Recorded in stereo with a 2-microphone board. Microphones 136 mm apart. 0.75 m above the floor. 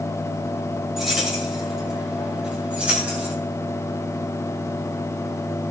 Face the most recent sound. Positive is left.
turn(degrees=-10)  # may be behind; listen again after turning